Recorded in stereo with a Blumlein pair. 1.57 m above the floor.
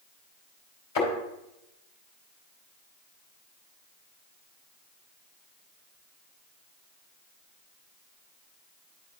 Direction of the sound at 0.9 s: 55° left.